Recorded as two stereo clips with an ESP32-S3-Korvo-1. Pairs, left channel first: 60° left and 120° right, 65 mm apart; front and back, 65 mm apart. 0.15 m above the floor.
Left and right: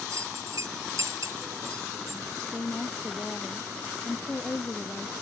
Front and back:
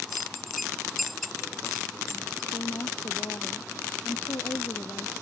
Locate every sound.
0.1 s a bell: 90° right
2.5 s a woman speaking: 5° right